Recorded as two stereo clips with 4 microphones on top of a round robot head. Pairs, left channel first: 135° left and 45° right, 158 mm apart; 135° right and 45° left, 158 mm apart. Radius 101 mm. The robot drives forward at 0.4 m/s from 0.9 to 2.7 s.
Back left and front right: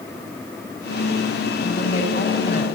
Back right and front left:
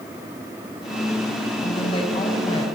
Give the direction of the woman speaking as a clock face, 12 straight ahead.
6 o'clock.